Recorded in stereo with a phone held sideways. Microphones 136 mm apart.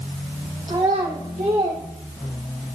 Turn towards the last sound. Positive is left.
turn(degrees=-75)  # may be behind; listen again after turning